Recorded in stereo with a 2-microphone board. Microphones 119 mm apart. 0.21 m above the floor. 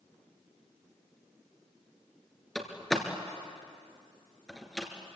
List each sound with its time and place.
2.5 s a door slam: centre (ahead or behind), 2.5 m